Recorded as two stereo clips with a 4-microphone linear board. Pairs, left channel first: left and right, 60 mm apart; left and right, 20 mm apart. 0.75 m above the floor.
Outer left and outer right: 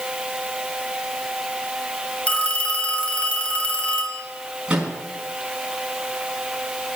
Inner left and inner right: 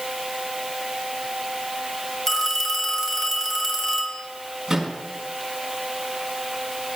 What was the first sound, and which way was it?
A phone ringing, 20° left (ahead or behind).